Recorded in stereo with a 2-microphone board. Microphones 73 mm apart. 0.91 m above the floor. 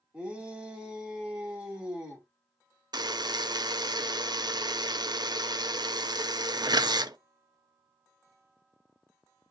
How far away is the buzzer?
About 0.6 m.